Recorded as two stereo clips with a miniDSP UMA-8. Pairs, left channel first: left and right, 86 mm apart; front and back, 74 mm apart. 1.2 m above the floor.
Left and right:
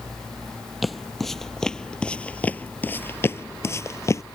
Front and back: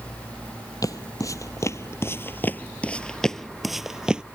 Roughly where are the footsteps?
Ahead.